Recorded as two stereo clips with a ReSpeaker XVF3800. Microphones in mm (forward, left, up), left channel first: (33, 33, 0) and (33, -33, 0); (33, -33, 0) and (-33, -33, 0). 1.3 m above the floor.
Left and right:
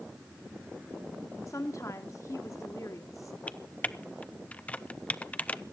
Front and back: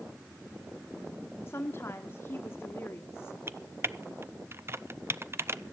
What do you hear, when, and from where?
1.5 s a woman speaking: 50° left, 1.2 m
3.5 s typing on a keyboard: 150° left, 0.5 m